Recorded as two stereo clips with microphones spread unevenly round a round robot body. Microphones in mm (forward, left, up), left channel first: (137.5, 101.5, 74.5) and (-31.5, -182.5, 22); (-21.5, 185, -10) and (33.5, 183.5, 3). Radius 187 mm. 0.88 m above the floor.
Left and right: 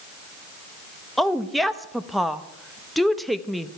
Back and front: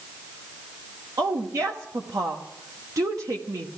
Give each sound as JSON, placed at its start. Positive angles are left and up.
{"t": 1.2, "sound": "a woman speaking", "azimuth_deg": -35, "distance_m": 1.0}